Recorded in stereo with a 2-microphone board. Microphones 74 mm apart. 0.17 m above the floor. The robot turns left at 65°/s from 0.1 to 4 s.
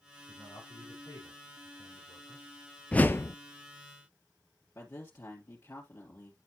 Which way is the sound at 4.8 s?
35° left (ahead or behind).